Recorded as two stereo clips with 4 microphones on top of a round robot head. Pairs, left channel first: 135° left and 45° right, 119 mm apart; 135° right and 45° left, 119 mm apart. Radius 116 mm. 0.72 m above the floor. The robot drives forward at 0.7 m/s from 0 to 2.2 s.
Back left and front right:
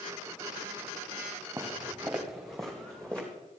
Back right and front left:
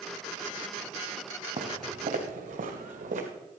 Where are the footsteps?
20° left, 2 m; by 3.3 s 50° left, 2.5 m.